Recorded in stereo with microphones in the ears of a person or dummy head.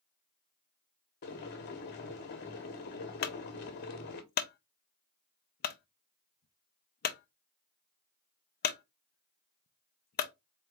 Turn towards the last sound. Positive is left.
turn(degrees=45)  # may be behind; listen again after turning